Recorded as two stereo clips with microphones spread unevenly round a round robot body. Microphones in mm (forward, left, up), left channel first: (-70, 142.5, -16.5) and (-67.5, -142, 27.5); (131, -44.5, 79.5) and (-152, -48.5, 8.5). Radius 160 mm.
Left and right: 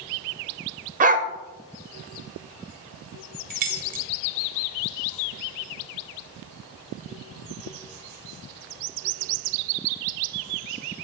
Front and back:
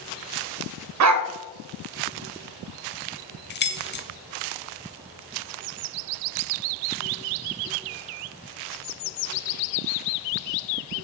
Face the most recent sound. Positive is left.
turn(degrees=-45)